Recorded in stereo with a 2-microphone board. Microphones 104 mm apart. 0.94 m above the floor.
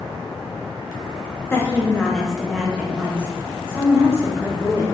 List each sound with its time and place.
1.5 s a woman speaking: 20° left (ahead or behind), 0.7 m; by 4.8 s 25° right (ahead or behind), 2 m